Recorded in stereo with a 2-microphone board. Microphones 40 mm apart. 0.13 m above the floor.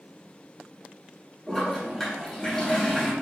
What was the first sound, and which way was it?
A toilet flushing, 10° left (ahead or behind).